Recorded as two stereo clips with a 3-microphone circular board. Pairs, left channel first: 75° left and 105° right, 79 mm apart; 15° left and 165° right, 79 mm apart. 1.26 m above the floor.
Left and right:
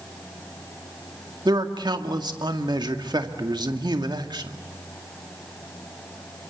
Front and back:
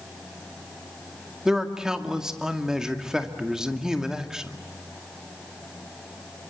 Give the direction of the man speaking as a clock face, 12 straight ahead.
3 o'clock.